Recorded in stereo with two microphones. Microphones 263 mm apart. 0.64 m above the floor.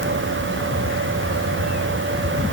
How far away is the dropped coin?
I don't hear a dropped coin.